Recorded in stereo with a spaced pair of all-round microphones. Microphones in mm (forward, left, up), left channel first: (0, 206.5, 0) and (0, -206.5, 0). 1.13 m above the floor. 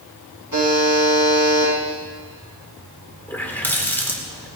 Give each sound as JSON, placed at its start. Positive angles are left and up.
{"t": 0.5, "sound": "a buzzer", "side_deg": -55, "distance_m": 7.0}
{"t": 3.3, "sound": "a running tap", "side_deg": 5, "distance_m": 2.0}